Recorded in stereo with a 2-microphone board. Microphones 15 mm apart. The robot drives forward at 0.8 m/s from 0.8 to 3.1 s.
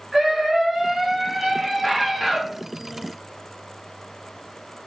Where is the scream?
30° right (ahead or behind), 1.4 m; by 2.4 s 20° right (ahead or behind), 2 m.